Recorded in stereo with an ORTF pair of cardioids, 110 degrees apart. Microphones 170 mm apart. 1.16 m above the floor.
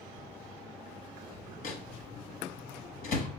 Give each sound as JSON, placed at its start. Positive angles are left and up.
{"t": 1.6, "sound": "a microwave", "azimuth_deg": 60, "distance_m": 0.9}